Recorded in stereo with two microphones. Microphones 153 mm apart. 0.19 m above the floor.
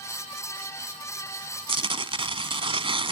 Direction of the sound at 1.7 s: 40° right (ahead or behind).